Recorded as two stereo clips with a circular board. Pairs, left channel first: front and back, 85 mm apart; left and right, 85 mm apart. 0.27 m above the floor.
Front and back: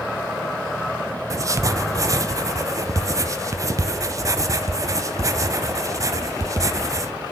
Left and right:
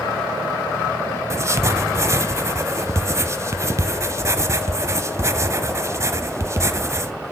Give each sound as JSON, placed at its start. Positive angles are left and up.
{"t": 1.3, "sound": "writing", "azimuth_deg": -140, "distance_m": 0.6}